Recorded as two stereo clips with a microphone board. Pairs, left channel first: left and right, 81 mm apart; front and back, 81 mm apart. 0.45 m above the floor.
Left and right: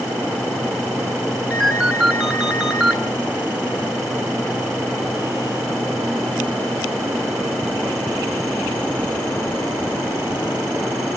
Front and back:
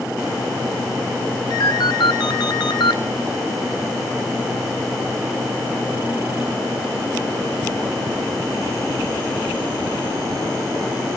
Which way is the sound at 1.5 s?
15° right.